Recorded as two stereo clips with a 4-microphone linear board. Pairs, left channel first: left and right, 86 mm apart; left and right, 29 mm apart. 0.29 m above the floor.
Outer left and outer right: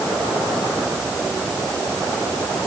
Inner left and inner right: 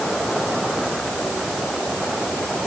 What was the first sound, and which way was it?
Only background noise.